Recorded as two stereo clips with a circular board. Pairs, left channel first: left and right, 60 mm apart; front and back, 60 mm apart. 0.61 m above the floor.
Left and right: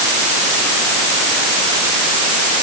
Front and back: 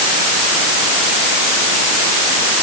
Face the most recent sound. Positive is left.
No sound to turn to.